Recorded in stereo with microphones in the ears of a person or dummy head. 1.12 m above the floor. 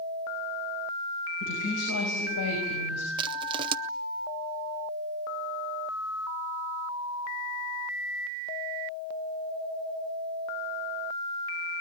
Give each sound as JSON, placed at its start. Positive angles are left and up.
{"t": 1.4, "sound": "a woman speaking", "side_deg": 80, "distance_m": 6.0}
{"t": 3.2, "sound": "crushing", "side_deg": -30, "distance_m": 0.7}